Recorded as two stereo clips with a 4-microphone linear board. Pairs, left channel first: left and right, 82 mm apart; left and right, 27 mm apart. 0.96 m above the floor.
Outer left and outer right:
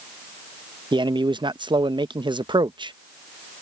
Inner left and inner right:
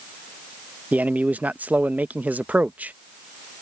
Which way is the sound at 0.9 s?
70° right (ahead or behind).